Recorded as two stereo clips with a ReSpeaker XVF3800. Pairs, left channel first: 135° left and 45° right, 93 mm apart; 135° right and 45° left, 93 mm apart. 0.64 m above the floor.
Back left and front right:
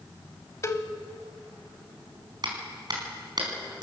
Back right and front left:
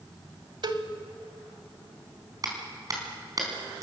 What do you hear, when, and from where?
0.6 s a cowbell: 75° left, 1.4 m
2.4 s a clap: 5° right, 4.5 m